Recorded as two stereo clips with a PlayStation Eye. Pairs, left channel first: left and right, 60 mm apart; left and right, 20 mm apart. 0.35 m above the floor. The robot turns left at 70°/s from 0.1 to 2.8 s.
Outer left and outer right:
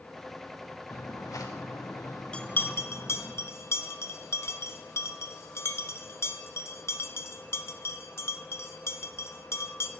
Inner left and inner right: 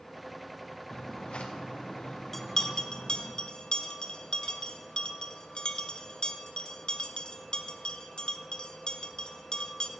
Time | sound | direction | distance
0.9 | footsteps | 45° left (ahead or behind) | 2.5 m
2.3 | a bell | 15° left (ahead or behind) | 0.9 m